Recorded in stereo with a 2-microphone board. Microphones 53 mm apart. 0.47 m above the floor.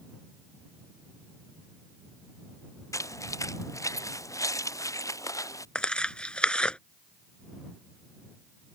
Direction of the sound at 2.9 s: 70° left (ahead or behind).